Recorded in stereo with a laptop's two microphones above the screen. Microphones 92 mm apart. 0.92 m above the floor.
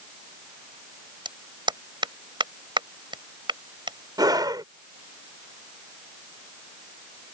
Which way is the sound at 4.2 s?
45° right (ahead or behind).